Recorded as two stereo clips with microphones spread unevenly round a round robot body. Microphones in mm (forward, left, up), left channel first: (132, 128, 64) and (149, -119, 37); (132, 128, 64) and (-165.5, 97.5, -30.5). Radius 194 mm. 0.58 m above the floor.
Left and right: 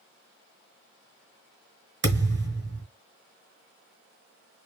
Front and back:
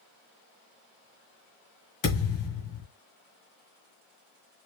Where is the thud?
40° right, 2 m.